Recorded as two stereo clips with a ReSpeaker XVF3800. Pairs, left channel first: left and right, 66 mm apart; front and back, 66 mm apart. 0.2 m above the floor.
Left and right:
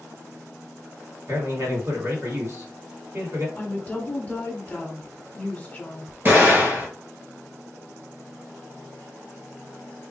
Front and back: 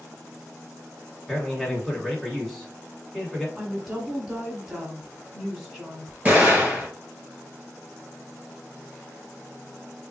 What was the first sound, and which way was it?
A man speaking, 85° right.